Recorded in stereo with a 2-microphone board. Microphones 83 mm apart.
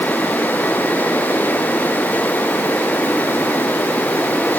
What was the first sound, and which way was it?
Only background noise.